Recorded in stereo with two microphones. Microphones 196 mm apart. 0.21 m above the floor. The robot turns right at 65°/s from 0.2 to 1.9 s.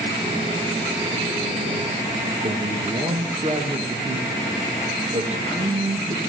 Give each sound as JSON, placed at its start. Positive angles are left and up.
{"t": 2.4, "sound": "a man speaking", "side_deg": -35, "distance_m": 2.5}